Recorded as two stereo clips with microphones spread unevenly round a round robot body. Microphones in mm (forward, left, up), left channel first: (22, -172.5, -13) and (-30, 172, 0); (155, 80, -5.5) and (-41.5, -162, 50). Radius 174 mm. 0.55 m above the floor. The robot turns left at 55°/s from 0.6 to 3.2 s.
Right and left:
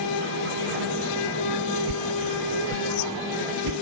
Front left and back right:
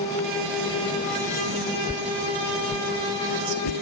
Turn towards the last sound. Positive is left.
turn(degrees=65)